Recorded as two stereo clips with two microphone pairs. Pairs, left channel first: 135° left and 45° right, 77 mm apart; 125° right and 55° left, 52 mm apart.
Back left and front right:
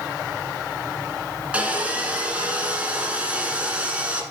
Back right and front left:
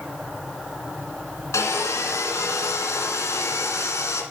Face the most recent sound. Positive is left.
turn(degrees=-120)